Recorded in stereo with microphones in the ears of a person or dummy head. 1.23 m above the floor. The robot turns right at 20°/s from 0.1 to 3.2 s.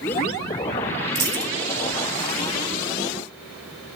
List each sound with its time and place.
1.1 s a dropped coin: 20° right (ahead or behind), 1.6 m; by 1.5 s 25° right (ahead or behind), 1.6 m